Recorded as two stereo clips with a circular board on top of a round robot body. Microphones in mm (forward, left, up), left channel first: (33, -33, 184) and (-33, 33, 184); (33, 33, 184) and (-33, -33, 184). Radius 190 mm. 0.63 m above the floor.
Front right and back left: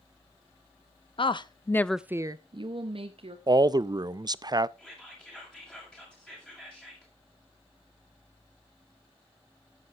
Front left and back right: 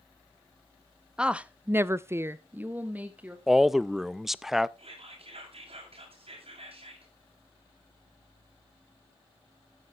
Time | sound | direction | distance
1.2 | a woman speaking | 55° right | 0.9 m
3.5 | a man speaking | 140° left | 0.6 m
4.8 | whispering | 125° right | 6.5 m